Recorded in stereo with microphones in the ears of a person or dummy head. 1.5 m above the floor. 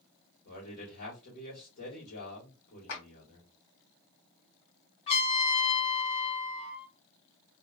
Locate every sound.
0.5 s a man speaking: 50° left (ahead or behind), 1.4 m
2.9 s a clap: 65° left (ahead or behind), 1.3 m
5.1 s a trumpet: 30° left (ahead or behind), 1.6 m